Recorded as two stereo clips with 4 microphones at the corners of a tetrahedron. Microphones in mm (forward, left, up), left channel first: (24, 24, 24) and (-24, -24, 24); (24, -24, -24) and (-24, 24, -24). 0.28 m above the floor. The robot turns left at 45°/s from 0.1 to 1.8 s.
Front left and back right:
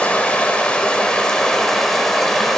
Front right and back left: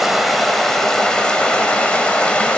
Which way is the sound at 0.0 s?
50° left.